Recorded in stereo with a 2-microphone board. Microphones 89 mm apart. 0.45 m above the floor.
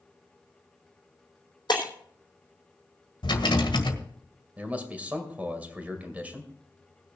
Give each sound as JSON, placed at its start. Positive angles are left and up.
{"t": 1.7, "sound": "breaking glass", "side_deg": 50, "distance_m": 3.5}
{"t": 3.2, "sound": "a rattle", "side_deg": 65, "distance_m": 1.7}
{"t": 4.6, "sound": "a man speaking", "side_deg": -15, "distance_m": 2.0}